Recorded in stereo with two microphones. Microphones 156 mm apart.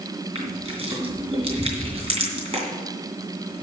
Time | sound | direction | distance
0.3 | crushing | 40° right (ahead or behind) | 3 m